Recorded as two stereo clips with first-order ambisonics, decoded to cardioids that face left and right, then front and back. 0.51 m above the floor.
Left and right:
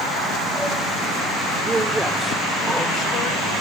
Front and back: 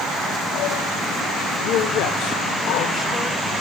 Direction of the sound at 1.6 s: 20° right.